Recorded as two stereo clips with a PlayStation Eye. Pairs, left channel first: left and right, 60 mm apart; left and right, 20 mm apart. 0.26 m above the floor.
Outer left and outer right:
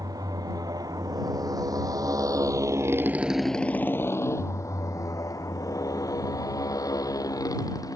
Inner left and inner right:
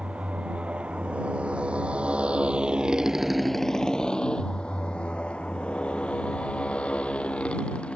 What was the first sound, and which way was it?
A motorcycle, 90° right.